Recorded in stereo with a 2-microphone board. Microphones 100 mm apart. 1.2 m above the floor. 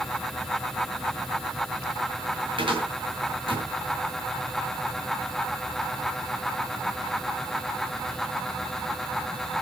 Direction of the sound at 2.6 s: 55° right (ahead or behind).